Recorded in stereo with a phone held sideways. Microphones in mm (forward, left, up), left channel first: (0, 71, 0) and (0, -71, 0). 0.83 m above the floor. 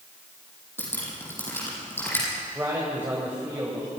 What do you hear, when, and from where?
0.8 s dripping: 15° left (ahead or behind), 9.5 m
2.5 s a man speaking: 15° right (ahead or behind), 5 m